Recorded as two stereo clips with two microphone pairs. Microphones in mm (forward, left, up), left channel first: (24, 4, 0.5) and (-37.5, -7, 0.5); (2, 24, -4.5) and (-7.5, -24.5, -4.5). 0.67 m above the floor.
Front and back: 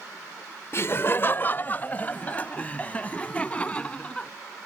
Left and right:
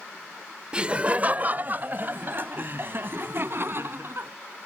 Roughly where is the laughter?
Ahead right.